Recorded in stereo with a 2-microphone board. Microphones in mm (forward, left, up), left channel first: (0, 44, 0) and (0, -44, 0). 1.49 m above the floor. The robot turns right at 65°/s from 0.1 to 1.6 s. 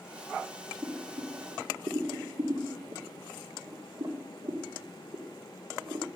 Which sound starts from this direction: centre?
Boiling, at 0.8 s.